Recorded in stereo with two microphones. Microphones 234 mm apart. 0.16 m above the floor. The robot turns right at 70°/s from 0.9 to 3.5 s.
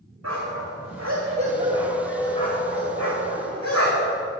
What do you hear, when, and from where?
0.2 s a dog barking: 80° right, 4.5 m; by 4.2 s 75° left (ahead or behind), 4.5 m